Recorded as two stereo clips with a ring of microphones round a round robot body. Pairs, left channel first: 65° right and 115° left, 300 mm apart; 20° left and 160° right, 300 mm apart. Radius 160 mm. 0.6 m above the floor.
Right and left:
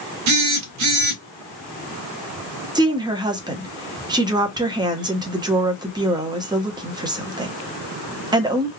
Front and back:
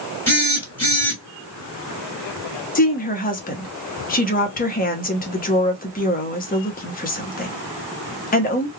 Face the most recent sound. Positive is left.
turn(degrees=50)